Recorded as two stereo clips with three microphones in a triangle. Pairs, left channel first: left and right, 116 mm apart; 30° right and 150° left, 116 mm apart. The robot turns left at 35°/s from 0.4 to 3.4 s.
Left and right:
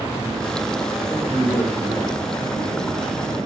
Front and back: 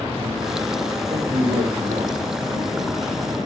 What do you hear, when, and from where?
1.1 s a man speaking: 165° right, 5 m; by 3.2 s 125° left, 5 m